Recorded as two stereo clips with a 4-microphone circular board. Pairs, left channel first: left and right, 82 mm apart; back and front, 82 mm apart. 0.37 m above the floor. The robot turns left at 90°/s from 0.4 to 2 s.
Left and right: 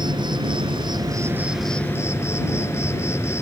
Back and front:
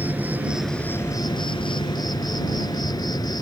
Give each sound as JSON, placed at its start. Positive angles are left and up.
{"t": 0.0, "sound": "an insect", "azimuth_deg": -70}